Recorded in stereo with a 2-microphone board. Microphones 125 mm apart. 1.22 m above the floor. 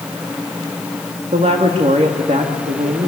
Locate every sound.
1.3 s a woman speaking: 70° right (ahead or behind), 1.9 m